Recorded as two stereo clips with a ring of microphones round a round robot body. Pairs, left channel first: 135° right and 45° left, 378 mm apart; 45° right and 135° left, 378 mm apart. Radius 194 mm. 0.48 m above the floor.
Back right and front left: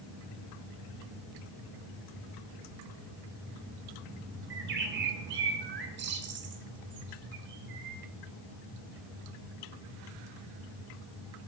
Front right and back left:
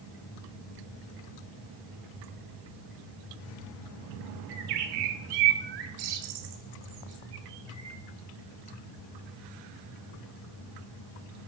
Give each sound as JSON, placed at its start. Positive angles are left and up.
{"t": 4.5, "sound": "a bird", "azimuth_deg": 110, "distance_m": 1.6}